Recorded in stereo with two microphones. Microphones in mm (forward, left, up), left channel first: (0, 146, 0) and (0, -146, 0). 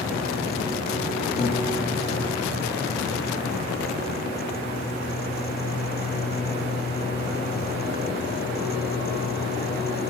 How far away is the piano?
About 2.5 m.